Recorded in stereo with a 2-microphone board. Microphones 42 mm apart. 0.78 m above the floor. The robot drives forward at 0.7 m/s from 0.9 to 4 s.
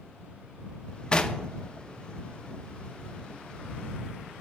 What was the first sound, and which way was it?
Knocking, 20° left (ahead or behind).